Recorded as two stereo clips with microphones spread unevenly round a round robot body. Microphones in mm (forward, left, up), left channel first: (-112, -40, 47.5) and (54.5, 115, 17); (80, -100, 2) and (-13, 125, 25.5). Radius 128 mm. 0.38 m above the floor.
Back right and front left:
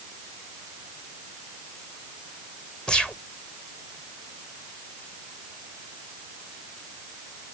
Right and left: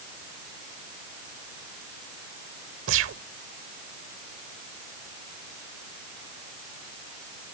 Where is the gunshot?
130° left.